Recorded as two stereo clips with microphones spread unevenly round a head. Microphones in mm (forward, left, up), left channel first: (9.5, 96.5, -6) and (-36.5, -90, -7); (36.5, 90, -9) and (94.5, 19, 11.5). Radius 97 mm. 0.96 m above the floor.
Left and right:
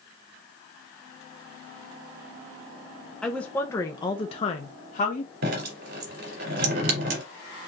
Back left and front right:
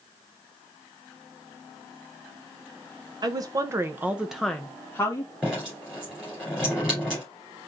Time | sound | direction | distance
3.2 | a woman speaking | 10° right | 0.8 m
5.4 | dripping | 140° right | 2 m